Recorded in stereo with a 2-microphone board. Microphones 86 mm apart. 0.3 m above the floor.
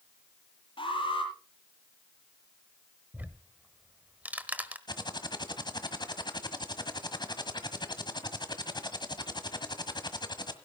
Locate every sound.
0.8 s an alarm: 80° left, 8 m
3.1 s ticking: 20° right (ahead or behind), 1.3 m
4.9 s typing on a keyboard: 55° left (ahead or behind), 1.5 m